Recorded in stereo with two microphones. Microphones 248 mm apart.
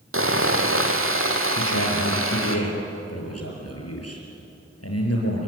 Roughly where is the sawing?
Right.